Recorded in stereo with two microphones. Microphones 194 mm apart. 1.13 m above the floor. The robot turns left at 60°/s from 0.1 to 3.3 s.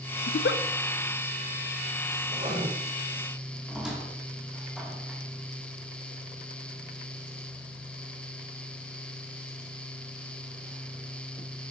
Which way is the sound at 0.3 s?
90° left.